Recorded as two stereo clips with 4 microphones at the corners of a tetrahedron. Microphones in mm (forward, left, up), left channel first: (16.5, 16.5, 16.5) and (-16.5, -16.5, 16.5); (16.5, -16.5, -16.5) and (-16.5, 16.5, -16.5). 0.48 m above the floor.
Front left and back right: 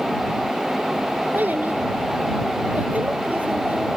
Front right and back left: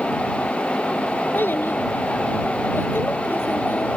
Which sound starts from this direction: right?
A child speaking, at 1.3 s.